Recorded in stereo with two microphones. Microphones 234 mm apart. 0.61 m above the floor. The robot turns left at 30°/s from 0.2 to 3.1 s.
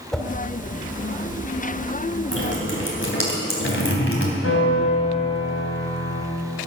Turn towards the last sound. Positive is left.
turn(degrees=80)